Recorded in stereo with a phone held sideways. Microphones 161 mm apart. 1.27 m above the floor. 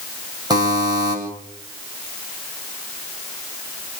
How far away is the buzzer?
About 8 m.